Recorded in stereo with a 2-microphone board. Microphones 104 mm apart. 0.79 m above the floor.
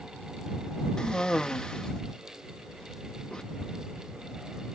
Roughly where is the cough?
Centre.